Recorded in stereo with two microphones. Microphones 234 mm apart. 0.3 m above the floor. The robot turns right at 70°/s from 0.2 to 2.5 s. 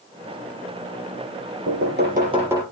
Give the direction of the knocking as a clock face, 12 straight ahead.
2 o'clock.